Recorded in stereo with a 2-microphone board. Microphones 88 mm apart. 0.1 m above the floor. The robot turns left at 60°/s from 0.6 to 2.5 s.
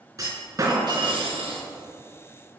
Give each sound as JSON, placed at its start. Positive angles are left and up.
{"t": 0.2, "sound": "a clunk", "azimuth_deg": -40, "distance_m": 3.0}